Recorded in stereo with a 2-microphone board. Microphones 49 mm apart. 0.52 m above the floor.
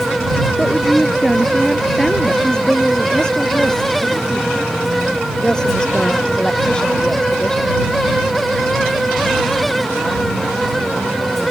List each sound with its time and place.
0.6 s a woman speaking: 5° left (ahead or behind); by 2.3 s 10° left (ahead or behind)
2.4 s a woman speaking: 15° left (ahead or behind)